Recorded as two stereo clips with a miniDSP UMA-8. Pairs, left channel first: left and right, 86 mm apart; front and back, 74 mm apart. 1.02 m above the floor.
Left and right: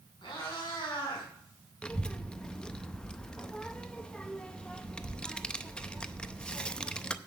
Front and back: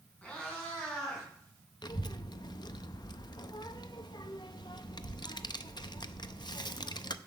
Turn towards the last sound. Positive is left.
turn(degrees=10)